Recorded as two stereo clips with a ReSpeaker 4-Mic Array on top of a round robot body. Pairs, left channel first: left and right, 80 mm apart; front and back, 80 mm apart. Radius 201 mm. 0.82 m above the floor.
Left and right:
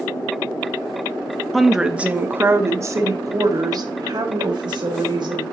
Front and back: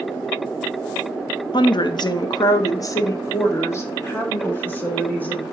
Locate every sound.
1.5 s a woman speaking: straight ahead, 1.0 m; by 5.4 s 70° right, 2.5 m